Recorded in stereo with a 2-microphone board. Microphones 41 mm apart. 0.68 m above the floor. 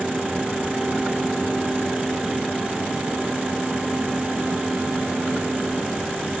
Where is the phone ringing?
I don't hear a phone ringing.